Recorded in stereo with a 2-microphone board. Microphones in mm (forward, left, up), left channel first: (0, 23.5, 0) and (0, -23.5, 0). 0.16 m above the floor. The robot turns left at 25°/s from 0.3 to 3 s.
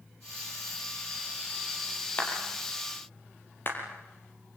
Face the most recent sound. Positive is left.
turn(degrees=50)  # may be behind; listen again after turning